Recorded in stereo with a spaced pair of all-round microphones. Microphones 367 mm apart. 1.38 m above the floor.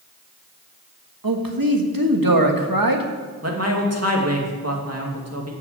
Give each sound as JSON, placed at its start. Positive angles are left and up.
{"t": 1.2, "sound": "a man speaking", "side_deg": -65, "distance_m": 1.7}
{"t": 3.4, "sound": "a man speaking", "side_deg": -40, "distance_m": 2.5}